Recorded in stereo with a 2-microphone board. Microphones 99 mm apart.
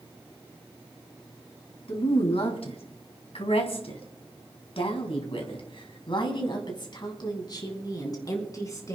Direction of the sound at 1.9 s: 70° left (ahead or behind).